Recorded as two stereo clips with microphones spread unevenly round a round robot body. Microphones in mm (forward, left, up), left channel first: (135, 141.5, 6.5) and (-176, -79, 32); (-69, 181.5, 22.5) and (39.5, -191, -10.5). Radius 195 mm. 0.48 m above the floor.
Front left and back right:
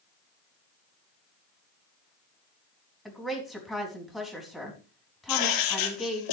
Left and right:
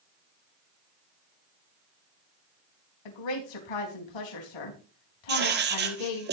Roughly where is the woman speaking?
Behind left.